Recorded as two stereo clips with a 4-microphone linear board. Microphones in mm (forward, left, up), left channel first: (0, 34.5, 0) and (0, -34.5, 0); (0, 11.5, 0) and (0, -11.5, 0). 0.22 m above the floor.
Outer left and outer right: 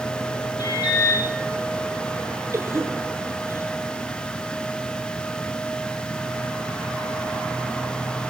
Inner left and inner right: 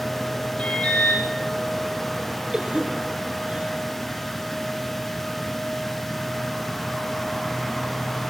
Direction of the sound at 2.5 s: 40° right (ahead or behind).